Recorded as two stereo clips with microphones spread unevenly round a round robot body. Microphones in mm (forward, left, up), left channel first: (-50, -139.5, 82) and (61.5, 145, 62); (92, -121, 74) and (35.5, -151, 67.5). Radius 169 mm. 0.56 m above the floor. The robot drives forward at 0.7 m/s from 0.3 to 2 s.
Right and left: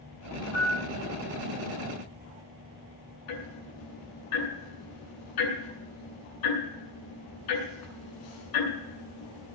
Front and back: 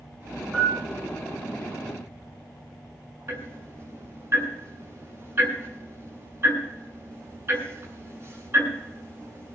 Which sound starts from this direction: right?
Ticking, at 3.3 s.